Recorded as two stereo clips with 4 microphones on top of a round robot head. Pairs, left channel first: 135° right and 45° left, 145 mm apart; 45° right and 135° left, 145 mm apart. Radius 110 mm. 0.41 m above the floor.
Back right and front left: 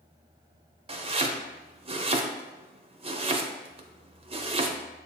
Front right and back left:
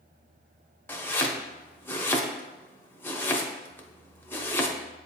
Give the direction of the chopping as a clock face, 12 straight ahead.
11 o'clock.